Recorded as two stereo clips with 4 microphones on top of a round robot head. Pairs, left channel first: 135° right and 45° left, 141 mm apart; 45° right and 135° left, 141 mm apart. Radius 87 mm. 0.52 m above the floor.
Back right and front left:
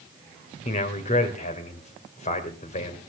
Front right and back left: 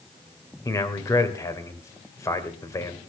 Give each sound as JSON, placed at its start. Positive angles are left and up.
{"t": 0.7, "sound": "a man speaking", "azimuth_deg": -110, "distance_m": 2.5}